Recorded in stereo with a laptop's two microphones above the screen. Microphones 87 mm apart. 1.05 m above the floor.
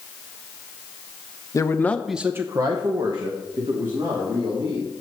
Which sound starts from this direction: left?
A man speaking, at 1.5 s.